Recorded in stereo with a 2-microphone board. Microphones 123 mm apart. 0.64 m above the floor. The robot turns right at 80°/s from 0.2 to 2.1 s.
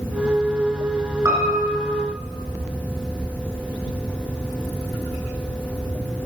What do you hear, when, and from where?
1.2 s a piano: 25° right (ahead or behind), 2.5 m; by 2.0 s 85° right, 2.5 m